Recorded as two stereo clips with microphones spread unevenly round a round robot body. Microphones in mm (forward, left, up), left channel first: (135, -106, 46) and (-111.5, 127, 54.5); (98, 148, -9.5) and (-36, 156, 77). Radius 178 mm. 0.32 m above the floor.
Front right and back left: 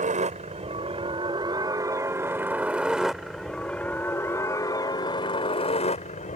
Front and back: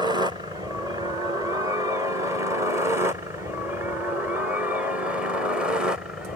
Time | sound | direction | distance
0.0 | a helicopter | 85° left | ?